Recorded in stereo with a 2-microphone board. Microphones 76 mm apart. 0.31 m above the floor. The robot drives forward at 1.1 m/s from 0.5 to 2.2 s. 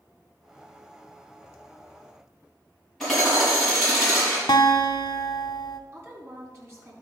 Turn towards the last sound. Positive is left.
turn(degrees=-35)  # may be behind; listen again after turning